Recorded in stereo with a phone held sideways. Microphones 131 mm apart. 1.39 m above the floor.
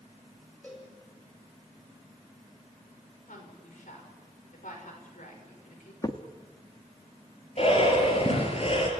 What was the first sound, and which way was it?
A cowbell, 10° left (ahead or behind).